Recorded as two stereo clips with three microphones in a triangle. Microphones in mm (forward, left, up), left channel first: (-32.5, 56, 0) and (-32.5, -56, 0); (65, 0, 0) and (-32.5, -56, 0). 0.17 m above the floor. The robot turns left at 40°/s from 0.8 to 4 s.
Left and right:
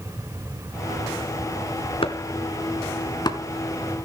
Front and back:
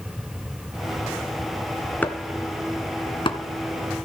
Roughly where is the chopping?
Left.